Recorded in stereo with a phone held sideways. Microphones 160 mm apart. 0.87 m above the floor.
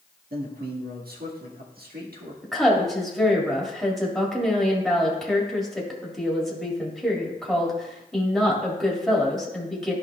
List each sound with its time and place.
0.3 s a man speaking: 75° right (ahead or behind), 1.4 m
2.4 s a woman speaking: centre (ahead or behind), 1.8 m